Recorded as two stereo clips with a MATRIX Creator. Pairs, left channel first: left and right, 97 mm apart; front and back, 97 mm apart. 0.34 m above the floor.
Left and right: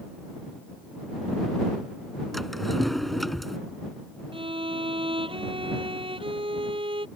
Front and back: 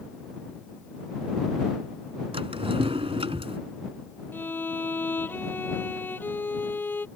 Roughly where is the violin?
Right.